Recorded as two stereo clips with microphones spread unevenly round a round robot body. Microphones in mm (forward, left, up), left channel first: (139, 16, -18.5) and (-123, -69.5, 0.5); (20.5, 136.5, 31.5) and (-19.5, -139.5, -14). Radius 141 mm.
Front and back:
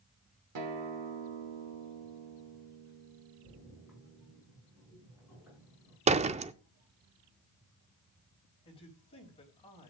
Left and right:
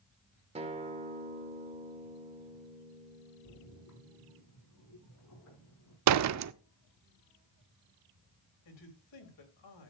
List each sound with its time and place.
0.6 s a guitar: 160° right, 1.5 m
3.4 s a splash: 115° left, 7 m
6.1 s a door slam: 95° right, 0.5 m
8.7 s a man speaking: 90° left, 3.5 m